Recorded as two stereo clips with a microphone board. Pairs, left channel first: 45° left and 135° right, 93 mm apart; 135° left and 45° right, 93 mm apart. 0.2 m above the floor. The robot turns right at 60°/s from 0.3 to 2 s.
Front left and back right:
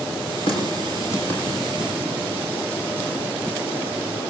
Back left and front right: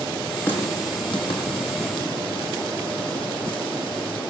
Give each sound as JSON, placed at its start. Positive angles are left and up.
{"t": 0.5, "sound": "a running tap", "azimuth_deg": 65, "distance_m": 7.0}